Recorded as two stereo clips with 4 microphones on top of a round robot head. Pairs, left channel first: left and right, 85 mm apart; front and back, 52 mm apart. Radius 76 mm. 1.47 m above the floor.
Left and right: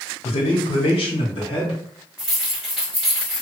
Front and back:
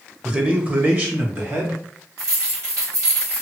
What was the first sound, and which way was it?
A man speaking, 110° left.